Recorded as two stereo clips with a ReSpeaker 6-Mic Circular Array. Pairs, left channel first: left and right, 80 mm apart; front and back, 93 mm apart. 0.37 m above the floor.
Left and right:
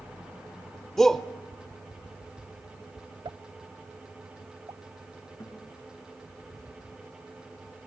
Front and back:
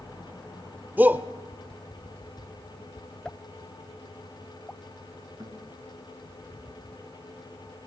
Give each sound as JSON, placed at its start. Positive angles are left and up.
{"t": 1.0, "sound": "a shout", "azimuth_deg": 165, "distance_m": 0.8}
{"t": 3.2, "sound": "a pop", "azimuth_deg": -80, "distance_m": 0.6}
{"t": 5.4, "sound": "a guitar", "azimuth_deg": 135, "distance_m": 4.5}